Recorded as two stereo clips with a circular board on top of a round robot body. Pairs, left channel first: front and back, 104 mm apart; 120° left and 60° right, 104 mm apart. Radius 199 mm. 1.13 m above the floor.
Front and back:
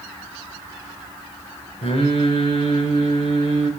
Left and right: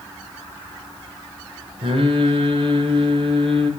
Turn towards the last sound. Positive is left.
turn(degrees=-25)